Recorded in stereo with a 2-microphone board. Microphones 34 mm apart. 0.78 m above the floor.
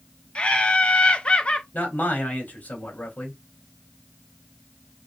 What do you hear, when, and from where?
0.3 s laughter: 35° left (ahead or behind), 0.7 m
1.7 s a man speaking: 65° left (ahead or behind), 3 m